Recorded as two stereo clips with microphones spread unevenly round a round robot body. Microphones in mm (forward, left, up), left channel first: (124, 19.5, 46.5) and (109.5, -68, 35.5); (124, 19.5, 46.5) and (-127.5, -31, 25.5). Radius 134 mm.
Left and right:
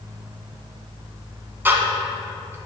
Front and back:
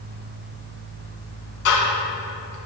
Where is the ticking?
30° right, 1.6 m.